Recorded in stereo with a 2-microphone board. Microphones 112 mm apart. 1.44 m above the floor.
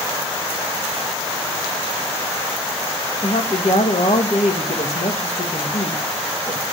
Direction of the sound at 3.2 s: 75° left (ahead or behind).